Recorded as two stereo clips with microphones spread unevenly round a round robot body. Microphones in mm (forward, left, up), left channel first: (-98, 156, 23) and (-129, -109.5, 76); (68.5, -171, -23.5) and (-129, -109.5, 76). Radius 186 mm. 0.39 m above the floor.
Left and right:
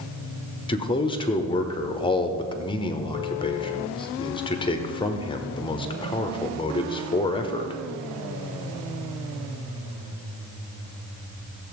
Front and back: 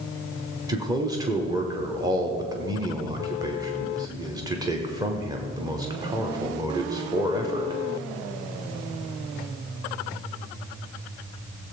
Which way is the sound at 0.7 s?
55° left.